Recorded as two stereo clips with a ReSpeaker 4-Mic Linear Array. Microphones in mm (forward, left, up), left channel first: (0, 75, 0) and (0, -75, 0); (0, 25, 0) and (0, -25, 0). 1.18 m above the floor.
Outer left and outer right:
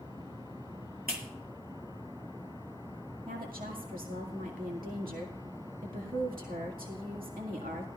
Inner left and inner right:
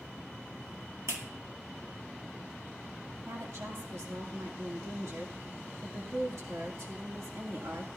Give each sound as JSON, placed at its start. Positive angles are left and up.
{"t": 1.1, "sound": "a clap", "side_deg": -80, "distance_m": 2.0}
{"t": 3.3, "sound": "a woman speaking", "side_deg": -70, "distance_m": 2.0}